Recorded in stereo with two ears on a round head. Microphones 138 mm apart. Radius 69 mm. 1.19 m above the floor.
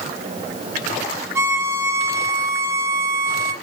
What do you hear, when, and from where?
1.4 s a violin: 20° right (ahead or behind), 0.8 m